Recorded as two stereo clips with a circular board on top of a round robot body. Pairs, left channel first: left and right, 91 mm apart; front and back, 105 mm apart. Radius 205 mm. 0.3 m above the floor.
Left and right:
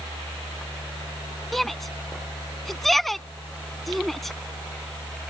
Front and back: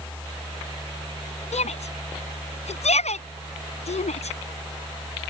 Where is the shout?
Straight ahead.